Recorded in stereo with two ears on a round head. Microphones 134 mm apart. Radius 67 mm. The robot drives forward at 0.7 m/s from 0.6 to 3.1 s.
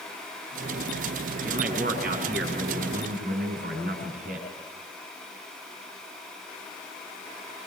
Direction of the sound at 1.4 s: 70° right (ahead or behind).